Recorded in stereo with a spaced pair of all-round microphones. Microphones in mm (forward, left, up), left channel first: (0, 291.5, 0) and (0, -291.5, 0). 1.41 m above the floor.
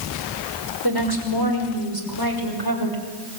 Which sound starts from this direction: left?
A woman speaking, at 0.8 s.